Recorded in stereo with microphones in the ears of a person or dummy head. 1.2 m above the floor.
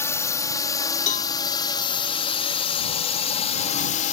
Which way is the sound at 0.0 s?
15° left (ahead or behind).